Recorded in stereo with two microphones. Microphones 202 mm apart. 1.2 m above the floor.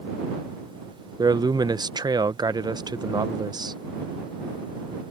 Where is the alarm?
I don't hear an alarm.